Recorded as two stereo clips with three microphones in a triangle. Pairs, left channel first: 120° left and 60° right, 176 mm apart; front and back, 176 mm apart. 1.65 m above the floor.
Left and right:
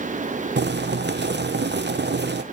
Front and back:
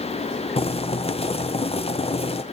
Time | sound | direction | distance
0.6 | boiling | 55° right | 0.7 m